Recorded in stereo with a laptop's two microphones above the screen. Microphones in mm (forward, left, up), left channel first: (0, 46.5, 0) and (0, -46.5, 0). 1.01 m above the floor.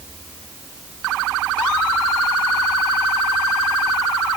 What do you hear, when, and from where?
Only background noise.